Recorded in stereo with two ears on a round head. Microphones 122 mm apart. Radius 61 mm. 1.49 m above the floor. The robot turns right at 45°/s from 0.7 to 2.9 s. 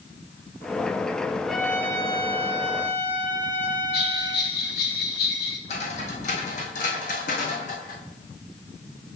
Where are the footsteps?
55° left (ahead or behind), 2.5 m; by 8.0 s 65° left (ahead or behind), 4 m.